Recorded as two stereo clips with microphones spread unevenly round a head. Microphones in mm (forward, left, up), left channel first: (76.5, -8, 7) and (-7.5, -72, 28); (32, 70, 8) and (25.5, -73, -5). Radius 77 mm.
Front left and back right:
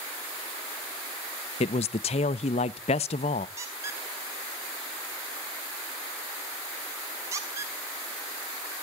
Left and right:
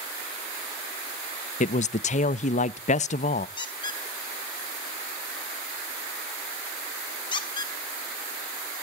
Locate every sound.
1.6 s a man speaking: 50° left, 0.5 m
3.6 s a squeak: 150° left, 1.3 m